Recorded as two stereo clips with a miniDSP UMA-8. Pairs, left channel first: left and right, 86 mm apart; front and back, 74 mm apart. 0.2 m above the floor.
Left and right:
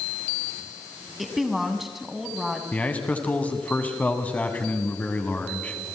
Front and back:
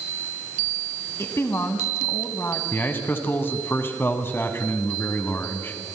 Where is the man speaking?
30° left, 1.9 m.